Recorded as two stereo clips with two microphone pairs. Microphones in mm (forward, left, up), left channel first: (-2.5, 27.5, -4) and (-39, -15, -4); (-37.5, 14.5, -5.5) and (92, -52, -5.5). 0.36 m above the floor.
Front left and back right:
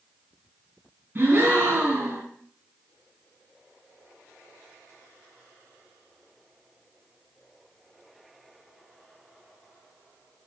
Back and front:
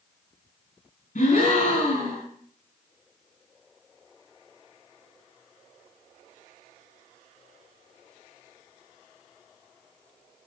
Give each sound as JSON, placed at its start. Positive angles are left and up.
{"t": 1.1, "sound": "a gasp", "azimuth_deg": 175, "distance_m": 3.5}